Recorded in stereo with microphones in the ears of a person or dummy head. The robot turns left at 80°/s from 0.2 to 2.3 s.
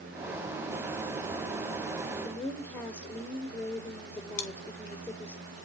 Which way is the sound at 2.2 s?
20° left (ahead or behind).